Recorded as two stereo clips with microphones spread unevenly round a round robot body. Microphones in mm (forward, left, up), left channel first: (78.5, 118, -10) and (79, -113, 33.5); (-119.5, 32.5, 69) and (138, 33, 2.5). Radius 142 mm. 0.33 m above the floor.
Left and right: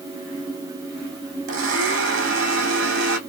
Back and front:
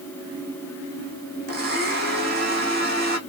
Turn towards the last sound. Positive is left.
turn(degrees=-60)